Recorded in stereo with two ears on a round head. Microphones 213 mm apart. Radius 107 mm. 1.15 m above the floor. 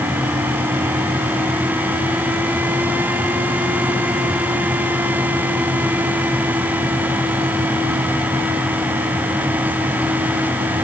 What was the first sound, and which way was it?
Only background noise.